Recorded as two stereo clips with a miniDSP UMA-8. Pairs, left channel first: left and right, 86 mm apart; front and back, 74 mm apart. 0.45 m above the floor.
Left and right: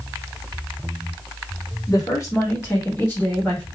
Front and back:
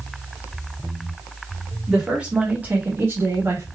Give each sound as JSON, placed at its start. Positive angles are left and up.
{"t": 1.9, "sound": "a woman speaking", "azimuth_deg": 100, "distance_m": 1.7}